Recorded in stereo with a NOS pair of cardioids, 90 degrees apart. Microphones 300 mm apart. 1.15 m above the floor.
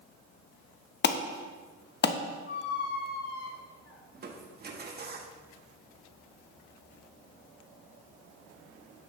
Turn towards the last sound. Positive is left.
turn(degrees=-35)